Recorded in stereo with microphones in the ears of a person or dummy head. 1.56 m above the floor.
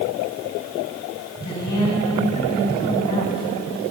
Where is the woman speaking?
20° left (ahead or behind), 7 m.